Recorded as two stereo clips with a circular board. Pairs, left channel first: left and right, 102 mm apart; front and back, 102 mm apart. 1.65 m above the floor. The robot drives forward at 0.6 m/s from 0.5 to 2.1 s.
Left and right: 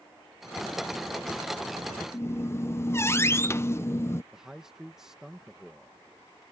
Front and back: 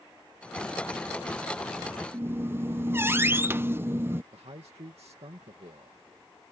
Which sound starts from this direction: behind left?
A squeak, at 2.1 s.